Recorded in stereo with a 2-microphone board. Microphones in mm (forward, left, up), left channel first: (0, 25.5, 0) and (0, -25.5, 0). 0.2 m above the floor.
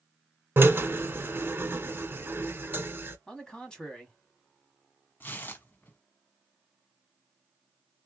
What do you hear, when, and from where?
0.6 s a drill: 40° right (ahead or behind), 0.8 m
3.3 s a man speaking: 15° left (ahead or behind), 1.2 m
5.2 s tearing paper: 40° left (ahead or behind), 0.8 m